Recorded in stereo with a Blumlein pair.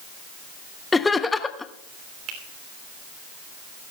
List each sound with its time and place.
0.9 s laughter: 10° left, 0.9 m
2.3 s a finger snap: 30° right, 3 m